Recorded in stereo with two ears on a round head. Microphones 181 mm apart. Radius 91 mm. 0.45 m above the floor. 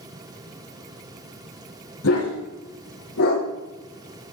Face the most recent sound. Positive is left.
turn(degrees=85)